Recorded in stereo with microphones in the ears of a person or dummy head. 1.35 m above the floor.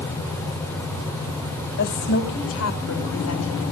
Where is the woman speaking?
60° left (ahead or behind), 2 m; by 3.6 s 80° left, 3 m.